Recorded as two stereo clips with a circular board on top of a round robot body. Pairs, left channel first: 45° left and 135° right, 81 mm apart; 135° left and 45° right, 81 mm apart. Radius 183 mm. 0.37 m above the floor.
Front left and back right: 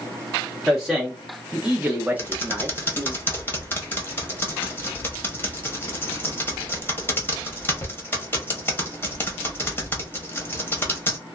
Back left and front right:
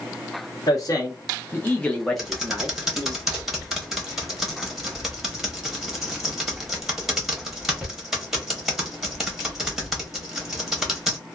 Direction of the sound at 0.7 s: 135° left.